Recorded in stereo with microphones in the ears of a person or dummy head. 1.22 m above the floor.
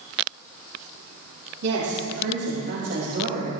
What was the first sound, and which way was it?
A woman speaking, 55° right (ahead or behind).